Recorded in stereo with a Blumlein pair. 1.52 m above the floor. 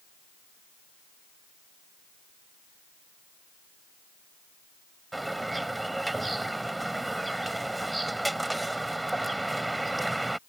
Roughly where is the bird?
Ahead.